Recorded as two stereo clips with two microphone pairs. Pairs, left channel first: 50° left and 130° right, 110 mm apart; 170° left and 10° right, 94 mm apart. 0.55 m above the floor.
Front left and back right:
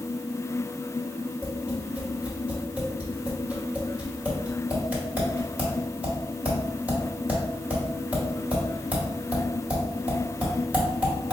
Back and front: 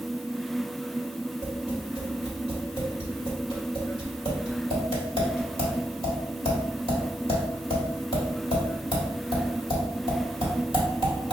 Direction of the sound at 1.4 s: 155° left.